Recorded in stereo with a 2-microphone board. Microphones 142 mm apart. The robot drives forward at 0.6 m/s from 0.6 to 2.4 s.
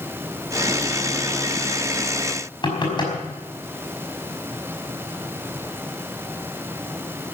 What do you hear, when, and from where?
2.6 s knocking: 35° left (ahead or behind), 5 m